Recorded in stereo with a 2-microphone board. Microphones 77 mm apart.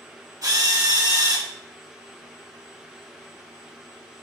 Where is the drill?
65° right (ahead or behind), 2.5 m.